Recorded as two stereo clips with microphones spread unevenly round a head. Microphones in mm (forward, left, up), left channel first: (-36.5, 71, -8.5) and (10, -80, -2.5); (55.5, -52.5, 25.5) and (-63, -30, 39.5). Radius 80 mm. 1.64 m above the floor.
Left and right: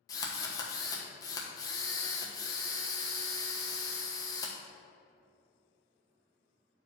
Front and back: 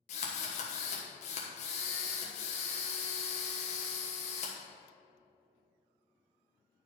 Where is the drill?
35° left, 1.3 m.